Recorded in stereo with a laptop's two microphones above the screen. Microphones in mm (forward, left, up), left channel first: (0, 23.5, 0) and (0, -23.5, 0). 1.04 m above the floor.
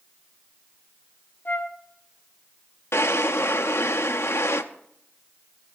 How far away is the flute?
About 0.8 m.